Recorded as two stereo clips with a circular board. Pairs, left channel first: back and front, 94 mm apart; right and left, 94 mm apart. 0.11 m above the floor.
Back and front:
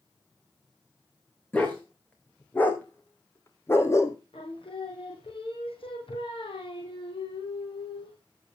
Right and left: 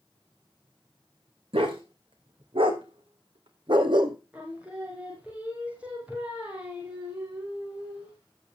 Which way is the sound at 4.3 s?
170° left.